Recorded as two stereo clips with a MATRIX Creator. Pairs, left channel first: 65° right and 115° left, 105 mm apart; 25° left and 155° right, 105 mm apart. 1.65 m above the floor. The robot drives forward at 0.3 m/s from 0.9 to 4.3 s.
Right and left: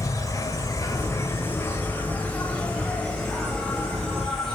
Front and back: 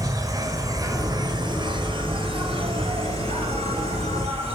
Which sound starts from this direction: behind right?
An insect, at 0.0 s.